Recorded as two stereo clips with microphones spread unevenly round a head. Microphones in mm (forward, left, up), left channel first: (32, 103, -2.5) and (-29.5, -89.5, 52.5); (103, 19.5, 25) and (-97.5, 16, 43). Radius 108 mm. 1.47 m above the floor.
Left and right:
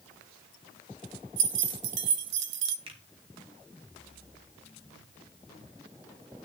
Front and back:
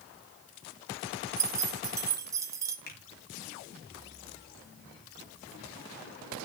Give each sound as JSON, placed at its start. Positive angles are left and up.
{"t": 1.4, "sound": "keys jangling", "azimuth_deg": -105, "distance_m": 0.9}
{"t": 2.9, "sound": "a finger snap", "azimuth_deg": -45, "distance_m": 2.5}